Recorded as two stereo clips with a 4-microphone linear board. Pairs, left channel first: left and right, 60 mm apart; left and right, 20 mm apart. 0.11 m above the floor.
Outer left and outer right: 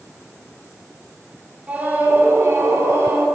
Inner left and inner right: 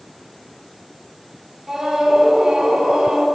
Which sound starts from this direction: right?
A scream, at 1.7 s.